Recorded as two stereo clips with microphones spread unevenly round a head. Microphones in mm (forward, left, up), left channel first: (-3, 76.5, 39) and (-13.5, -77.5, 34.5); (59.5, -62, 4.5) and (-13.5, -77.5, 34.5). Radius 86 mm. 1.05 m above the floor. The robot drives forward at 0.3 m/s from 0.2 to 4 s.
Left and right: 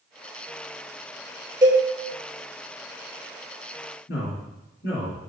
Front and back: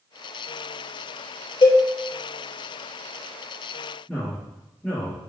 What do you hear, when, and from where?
1.6 s a cowbell: 25° right, 0.7 m
4.1 s a man speaking: 105° left, 1.9 m